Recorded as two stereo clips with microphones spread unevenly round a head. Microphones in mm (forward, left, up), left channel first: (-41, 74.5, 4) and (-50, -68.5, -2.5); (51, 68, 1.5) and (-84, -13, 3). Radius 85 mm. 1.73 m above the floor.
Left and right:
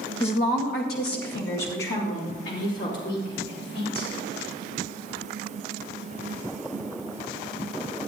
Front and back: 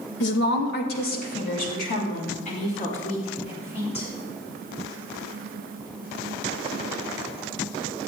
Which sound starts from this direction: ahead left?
A woman speaking, at 0.2 s.